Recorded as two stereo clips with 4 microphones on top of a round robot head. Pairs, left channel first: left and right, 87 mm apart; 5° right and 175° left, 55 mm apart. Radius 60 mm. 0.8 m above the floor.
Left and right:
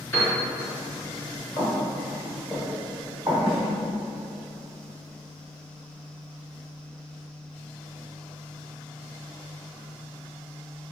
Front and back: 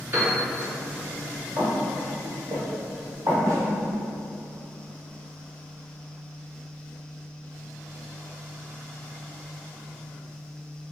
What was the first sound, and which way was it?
A piano, 145° left.